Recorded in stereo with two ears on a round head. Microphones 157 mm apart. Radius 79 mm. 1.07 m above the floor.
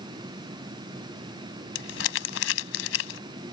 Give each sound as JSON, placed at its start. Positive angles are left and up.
{"t": 1.8, "sound": "crumpling", "side_deg": 80}